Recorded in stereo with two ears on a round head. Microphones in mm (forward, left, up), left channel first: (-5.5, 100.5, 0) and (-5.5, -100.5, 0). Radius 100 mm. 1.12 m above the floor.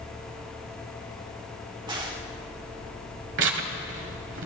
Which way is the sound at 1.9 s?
20° right (ahead or behind).